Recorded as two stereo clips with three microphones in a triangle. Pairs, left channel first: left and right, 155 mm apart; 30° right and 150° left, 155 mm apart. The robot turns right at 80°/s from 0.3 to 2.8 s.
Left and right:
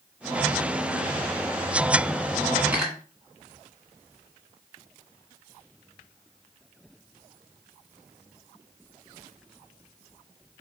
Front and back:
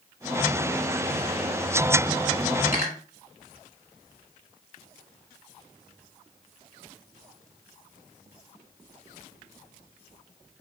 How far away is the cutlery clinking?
About 1.6 m.